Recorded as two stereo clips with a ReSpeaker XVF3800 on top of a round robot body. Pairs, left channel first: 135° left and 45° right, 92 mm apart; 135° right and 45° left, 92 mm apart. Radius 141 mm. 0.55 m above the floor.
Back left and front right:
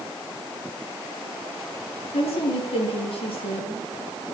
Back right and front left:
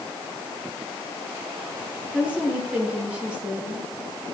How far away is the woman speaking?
About 8 m.